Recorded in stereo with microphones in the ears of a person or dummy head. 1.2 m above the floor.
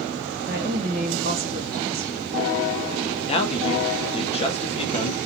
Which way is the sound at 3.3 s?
30° left (ahead or behind).